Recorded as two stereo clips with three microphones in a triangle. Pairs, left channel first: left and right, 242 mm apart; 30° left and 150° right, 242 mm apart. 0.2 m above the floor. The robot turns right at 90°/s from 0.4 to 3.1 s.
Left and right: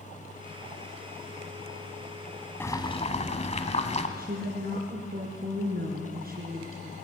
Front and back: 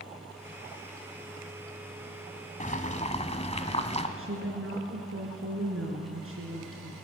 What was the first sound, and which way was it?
Boiling, 15° left.